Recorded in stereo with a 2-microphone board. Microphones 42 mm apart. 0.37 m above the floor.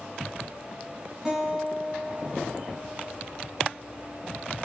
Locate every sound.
1.2 s a guitar: 15° right (ahead or behind), 2.5 m